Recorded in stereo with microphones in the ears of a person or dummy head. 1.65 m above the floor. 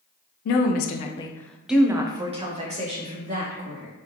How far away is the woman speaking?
About 0.6 m.